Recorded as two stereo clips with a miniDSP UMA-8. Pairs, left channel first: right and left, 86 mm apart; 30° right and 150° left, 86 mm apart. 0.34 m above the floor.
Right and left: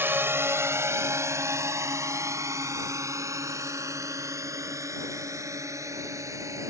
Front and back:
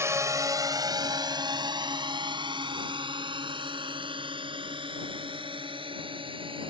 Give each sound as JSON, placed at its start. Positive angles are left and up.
{"t": 0.0, "sound": "a drone", "azimuth_deg": 130}